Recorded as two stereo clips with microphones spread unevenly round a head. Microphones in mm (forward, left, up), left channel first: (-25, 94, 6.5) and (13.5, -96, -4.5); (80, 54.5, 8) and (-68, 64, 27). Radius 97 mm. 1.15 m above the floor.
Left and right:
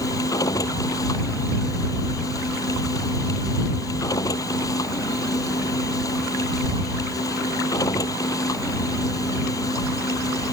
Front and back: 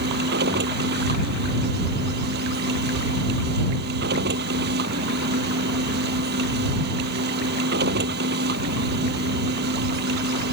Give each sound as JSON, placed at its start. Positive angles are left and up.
{"t": 0.0, "sound": "a machine running", "azimuth_deg": 175}